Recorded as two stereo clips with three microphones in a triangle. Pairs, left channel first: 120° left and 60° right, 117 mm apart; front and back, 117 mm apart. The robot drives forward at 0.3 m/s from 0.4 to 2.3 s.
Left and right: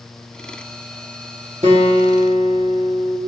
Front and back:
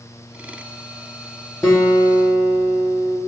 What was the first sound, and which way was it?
A guitar, 85° right.